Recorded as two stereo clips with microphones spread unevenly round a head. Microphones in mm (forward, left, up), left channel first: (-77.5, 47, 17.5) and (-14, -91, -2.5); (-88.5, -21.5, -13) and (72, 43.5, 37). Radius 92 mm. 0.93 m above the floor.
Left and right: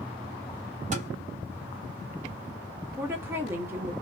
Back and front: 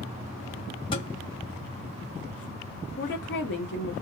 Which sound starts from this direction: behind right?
A woman speaking, at 3.0 s.